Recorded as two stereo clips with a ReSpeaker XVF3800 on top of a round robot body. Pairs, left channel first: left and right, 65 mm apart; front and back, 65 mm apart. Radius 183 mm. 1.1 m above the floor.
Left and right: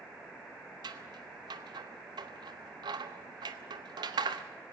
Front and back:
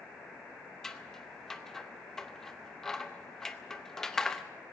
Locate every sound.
0.8 s scissors: 85° right, 0.7 m